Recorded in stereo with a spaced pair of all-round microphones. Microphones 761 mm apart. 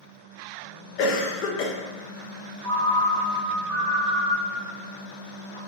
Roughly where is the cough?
Left.